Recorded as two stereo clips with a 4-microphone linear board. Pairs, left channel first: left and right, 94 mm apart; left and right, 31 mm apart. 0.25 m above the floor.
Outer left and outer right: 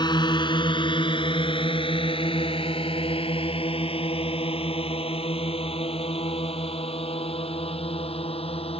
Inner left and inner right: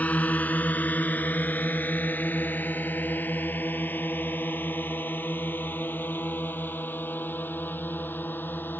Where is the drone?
50° left (ahead or behind); by 8.8 s 80° left.